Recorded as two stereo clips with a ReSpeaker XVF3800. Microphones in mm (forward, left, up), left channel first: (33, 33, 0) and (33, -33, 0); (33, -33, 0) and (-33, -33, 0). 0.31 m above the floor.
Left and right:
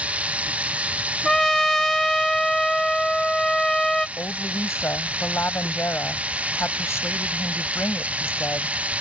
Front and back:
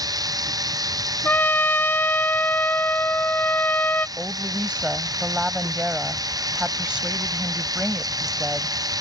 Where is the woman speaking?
115° left.